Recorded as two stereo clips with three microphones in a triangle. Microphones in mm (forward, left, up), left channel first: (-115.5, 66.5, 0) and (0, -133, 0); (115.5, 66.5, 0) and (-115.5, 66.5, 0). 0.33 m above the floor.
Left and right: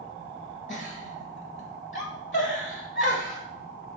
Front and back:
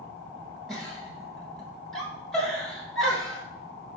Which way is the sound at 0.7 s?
90° left.